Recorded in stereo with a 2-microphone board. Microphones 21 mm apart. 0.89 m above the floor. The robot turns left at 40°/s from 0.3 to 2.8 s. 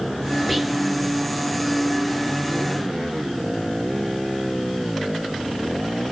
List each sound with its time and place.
0.5 s whispering: centre (ahead or behind), 1.7 m; by 0.8 s 15° right (ahead or behind), 1.7 m